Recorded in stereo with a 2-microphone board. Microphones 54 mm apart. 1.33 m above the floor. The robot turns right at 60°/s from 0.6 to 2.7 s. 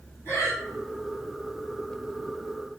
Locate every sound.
0.2 s breathing: 55° left (ahead or behind), 1.9 m